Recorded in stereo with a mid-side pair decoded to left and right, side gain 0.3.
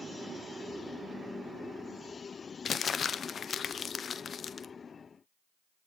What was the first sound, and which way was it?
Crumpling, 65° left.